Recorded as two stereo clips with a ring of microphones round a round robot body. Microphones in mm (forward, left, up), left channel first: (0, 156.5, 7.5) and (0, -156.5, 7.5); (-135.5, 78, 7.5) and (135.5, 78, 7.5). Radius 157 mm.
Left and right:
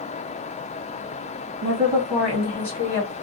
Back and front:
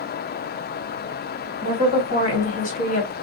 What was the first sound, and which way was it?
A woman speaking, 170° right.